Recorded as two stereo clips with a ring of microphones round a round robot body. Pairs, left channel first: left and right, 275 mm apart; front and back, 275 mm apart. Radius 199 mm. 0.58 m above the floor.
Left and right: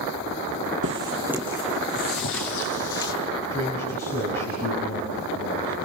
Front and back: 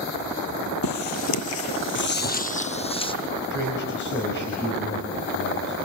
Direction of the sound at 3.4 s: 40° left.